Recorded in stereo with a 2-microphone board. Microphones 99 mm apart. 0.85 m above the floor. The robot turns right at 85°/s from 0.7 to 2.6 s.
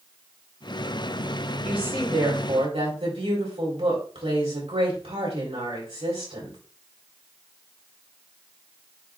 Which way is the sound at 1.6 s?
170° right.